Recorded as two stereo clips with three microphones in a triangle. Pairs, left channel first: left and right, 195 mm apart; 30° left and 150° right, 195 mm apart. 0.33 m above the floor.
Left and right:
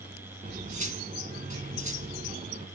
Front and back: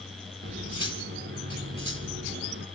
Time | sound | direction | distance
0.4 | cutlery clinking | 140° right | 1.7 m